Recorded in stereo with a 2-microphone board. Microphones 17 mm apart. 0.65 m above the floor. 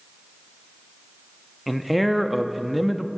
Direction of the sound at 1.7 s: 5° right (ahead or behind).